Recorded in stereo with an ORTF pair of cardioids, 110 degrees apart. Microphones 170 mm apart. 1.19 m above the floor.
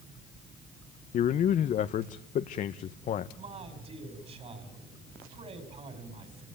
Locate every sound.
1.1 s a man speaking: 50° left, 0.9 m
3.4 s a man speaking: 40° right, 6 m